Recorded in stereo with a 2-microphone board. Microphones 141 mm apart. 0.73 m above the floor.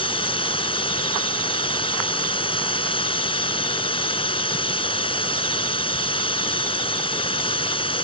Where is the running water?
40° left (ahead or behind).